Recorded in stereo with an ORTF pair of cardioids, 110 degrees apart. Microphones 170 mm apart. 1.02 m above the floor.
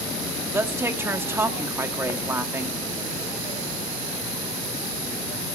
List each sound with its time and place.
0.5 s a woman speaking: 15° right, 1.5 m